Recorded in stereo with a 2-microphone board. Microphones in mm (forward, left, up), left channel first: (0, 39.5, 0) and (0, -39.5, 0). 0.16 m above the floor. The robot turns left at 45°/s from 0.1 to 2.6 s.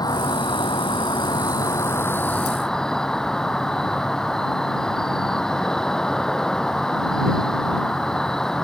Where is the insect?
120° left; by 8.6 s 5° left.